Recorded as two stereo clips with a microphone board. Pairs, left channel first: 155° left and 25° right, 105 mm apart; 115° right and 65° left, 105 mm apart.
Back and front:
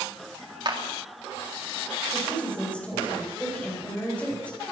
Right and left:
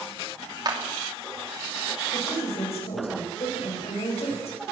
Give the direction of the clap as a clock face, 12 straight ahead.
11 o'clock.